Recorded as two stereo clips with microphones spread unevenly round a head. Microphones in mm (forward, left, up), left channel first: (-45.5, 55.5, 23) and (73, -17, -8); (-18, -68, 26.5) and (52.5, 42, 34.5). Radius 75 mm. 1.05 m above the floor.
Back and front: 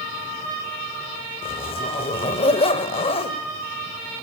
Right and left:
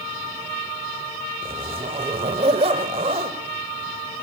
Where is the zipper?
110° left, 1.5 m.